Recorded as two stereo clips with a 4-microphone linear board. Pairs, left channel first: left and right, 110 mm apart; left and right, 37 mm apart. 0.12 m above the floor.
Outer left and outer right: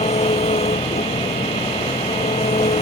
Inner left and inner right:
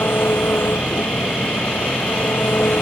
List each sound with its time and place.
0.0 s an engine running: 80° left